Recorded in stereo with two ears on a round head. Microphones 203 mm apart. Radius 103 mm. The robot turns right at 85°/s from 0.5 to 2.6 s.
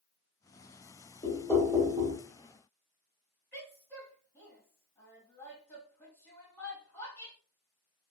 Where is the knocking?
145° left, 1.0 m; by 2.2 s 135° right, 1.0 m.